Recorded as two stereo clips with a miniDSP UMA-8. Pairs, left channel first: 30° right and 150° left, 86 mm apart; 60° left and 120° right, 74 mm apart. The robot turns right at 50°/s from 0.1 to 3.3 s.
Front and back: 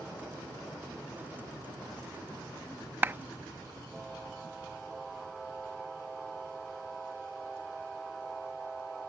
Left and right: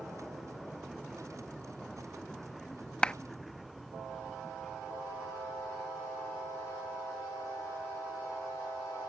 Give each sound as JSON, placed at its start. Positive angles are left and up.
{"t": 3.0, "sound": "a clap", "azimuth_deg": 120}